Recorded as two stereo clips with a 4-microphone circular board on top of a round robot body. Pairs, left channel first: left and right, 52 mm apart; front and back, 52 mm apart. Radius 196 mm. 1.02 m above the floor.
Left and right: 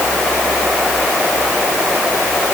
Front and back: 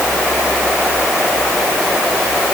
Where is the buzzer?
No buzzer in this recording.